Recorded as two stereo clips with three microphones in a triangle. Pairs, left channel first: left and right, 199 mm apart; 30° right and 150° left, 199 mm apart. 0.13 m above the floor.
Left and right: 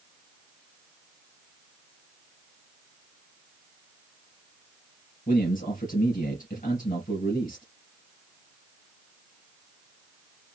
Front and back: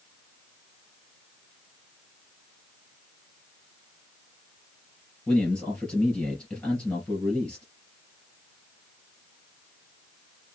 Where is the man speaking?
55° left, 3 m.